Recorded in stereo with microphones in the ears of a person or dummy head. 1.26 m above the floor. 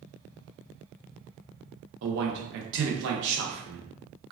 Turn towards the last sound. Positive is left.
turn(degrees=-60)  # may be behind; listen again after turning